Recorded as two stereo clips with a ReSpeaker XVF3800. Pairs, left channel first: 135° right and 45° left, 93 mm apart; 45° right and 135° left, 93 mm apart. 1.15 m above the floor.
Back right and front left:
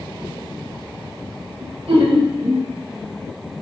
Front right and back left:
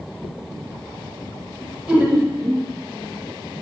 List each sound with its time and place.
1.6 s laughter: 50° left, 0.8 m; by 2.7 s 80° left, 1.1 m